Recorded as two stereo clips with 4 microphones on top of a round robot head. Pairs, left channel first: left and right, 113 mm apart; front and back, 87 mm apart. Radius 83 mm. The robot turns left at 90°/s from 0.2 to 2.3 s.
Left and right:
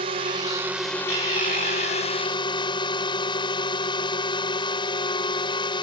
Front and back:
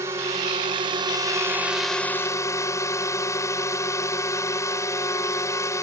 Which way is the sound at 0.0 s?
120° right.